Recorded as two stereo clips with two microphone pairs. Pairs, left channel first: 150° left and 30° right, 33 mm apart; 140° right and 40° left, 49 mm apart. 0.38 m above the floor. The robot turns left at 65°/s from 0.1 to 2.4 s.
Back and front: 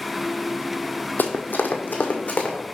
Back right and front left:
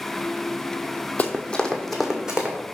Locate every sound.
1.2 s running footsteps: 165° left, 0.9 m; by 2.6 s 110° left, 1.8 m